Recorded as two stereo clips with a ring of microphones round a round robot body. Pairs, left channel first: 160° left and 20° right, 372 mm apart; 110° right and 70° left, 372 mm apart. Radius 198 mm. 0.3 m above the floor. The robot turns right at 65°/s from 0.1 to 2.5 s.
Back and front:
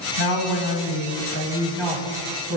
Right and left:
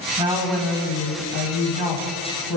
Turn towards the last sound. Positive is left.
turn(degrees=-70)